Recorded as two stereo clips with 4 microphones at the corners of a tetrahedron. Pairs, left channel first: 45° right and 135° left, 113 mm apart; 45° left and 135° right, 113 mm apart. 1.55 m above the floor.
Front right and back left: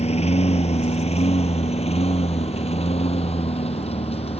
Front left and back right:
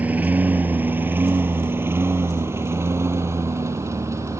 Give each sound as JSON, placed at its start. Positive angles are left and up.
{"t": 0.0, "sound": "a lawn mower", "azimuth_deg": -60}